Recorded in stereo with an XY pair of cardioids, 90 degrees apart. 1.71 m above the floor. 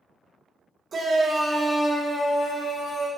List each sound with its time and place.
0.9 s a shout: 50° right, 0.9 m; by 3.1 s 45° left, 1.5 m